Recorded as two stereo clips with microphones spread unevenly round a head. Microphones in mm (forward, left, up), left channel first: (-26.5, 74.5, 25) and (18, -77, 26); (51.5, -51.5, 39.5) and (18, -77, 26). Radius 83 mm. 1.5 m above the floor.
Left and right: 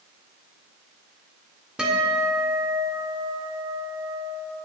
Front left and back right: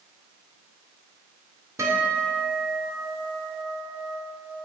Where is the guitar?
160° right, 1.7 m.